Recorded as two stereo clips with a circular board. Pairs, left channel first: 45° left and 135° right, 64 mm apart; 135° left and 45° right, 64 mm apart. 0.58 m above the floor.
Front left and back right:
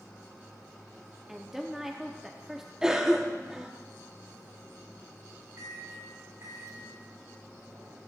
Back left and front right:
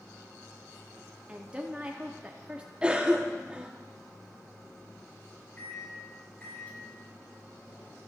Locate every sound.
1.3 s a woman speaking: 65° right, 0.7 m
2.8 s a cough: 75° right, 0.8 m
5.6 s a microwave: 165° right, 1.9 m